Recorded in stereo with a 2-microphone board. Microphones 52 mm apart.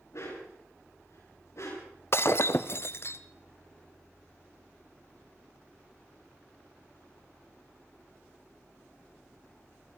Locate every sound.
0.1 s a dog barking: 65° left (ahead or behind), 8.5 m
2.1 s breaking glass: 50° left (ahead or behind), 0.9 m